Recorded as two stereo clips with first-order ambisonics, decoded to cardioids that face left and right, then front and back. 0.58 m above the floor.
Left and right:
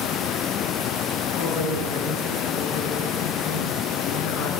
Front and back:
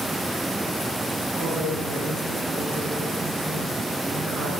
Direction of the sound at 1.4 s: 120° left.